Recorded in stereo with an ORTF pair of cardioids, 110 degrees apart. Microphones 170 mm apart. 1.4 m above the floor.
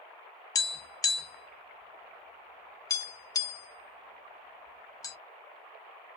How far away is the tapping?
About 0.6 m.